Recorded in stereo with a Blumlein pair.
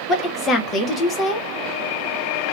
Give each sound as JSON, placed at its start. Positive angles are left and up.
{"t": 0.1, "sound": "a woman speaking", "azimuth_deg": 20, "distance_m": 1.1}